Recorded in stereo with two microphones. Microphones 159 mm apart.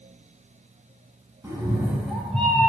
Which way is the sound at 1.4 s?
20° right (ahead or behind).